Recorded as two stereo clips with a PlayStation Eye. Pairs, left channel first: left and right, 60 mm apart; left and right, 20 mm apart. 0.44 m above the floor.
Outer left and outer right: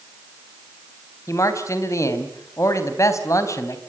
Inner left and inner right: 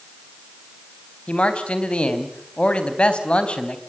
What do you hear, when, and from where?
1.3 s a man speaking: 55° left (ahead or behind), 3.5 m